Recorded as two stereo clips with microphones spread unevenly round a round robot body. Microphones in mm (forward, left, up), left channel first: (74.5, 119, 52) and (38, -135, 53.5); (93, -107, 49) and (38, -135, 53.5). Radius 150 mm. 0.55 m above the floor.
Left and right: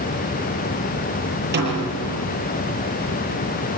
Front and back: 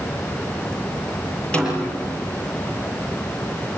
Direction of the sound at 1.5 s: 50° right.